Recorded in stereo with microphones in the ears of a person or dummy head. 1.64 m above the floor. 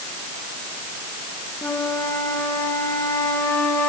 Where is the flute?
5° left (ahead or behind), 2.5 m.